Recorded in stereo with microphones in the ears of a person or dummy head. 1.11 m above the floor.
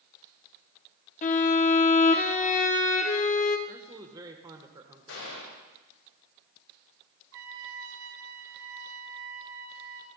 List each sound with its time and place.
1.2 s a violin: 35° left (ahead or behind), 0.8 m
3.7 s a man speaking: 15° right (ahead or behind), 0.9 m
5.1 s a gunshot: 80° left, 5.5 m
7.3 s a trumpet: 70° right (ahead or behind), 1.3 m